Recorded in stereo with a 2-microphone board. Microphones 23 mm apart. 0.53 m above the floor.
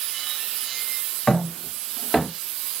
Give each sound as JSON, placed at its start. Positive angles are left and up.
{"t": 1.3, "sound": "footsteps", "side_deg": 20, "distance_m": 5.5}